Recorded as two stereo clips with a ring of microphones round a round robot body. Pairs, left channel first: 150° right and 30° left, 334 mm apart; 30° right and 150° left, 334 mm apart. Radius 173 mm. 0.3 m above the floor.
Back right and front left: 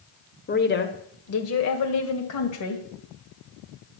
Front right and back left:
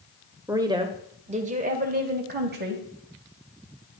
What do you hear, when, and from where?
0.5 s a woman speaking: 140° right, 1.3 m; by 2.8 s 155° right, 2 m